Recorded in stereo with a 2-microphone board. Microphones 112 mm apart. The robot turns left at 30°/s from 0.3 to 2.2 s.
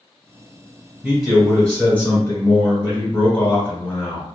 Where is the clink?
I don't hear a clink.